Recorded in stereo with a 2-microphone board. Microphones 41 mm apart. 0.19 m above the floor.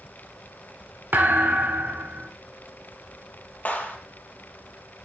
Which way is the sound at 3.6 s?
35° left (ahead or behind).